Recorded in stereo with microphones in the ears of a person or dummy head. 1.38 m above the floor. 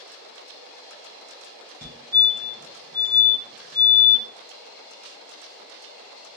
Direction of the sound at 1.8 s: 20° right (ahead or behind).